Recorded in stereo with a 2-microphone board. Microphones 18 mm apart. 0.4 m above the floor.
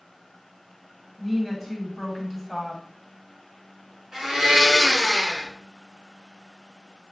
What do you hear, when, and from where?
1.2 s a woman speaking: 5° right (ahead or behind), 2.5 m
4.1 s a blender: 35° right (ahead or behind), 3 m